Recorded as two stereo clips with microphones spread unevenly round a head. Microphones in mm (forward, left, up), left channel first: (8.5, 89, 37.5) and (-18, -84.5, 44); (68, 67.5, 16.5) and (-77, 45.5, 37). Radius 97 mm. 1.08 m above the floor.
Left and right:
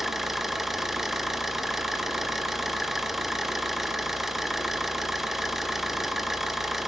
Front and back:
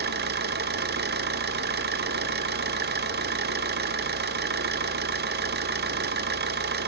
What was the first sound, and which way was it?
An engine running, 175° left.